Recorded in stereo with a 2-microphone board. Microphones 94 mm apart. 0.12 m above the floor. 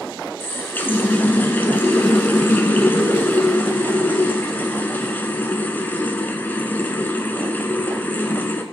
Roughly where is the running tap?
Left.